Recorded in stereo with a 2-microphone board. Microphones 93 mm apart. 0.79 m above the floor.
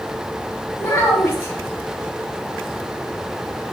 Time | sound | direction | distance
0.8 | a child speaking | 25° left (ahead or behind) | 0.7 m